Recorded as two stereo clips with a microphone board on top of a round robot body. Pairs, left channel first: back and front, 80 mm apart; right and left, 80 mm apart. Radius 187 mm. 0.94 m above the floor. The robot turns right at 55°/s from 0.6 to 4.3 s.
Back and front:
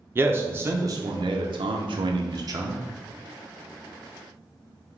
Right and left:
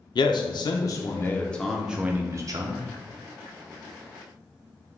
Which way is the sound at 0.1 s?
60° right.